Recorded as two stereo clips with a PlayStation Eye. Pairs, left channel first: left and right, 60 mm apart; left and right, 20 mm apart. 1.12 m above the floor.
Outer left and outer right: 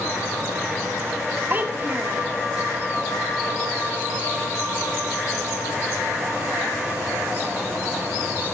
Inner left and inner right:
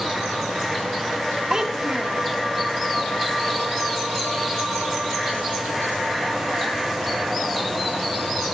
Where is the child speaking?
30° right (ahead or behind), 1.5 m.